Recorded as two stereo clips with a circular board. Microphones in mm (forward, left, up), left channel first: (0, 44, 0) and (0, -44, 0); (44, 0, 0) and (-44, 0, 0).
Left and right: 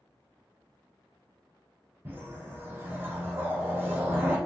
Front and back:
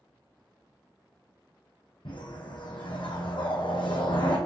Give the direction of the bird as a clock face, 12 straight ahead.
No bird in this recording.